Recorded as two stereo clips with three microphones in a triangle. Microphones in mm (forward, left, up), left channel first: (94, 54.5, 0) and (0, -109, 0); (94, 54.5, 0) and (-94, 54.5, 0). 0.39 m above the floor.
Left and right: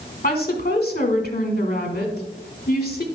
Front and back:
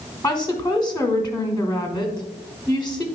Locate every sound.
0.2 s a woman speaking: 80° left, 1.2 m